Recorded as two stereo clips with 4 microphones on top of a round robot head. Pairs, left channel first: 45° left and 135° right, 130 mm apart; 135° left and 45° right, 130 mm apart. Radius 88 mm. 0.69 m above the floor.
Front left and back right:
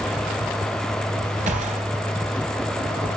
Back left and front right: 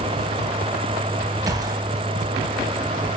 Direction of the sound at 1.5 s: 105° right.